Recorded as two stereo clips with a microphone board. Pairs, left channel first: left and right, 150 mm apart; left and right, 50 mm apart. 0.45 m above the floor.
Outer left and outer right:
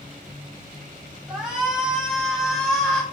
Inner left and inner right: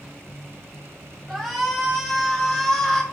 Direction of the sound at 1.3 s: 5° right (ahead or behind).